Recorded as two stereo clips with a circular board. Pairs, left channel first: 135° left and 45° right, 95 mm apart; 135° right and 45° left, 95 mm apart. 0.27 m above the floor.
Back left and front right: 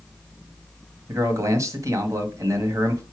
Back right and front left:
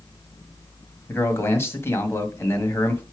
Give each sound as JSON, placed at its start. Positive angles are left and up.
{"t": 1.1, "sound": "a man speaking", "azimuth_deg": -85, "distance_m": 1.3}